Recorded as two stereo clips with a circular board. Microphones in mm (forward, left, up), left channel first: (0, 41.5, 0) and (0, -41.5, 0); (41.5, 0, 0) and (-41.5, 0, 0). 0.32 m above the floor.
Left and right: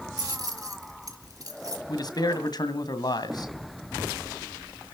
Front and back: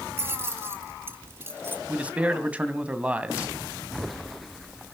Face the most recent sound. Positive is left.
turn(degrees=110)